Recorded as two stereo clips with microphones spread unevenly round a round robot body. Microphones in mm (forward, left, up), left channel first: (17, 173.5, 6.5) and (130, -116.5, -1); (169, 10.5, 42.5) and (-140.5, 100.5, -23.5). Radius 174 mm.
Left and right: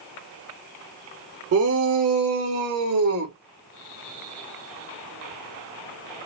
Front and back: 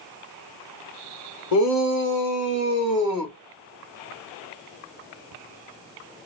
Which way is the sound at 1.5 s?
60° right.